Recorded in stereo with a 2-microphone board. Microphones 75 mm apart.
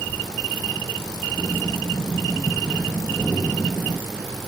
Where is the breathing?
15° left (ahead or behind), 1.4 m.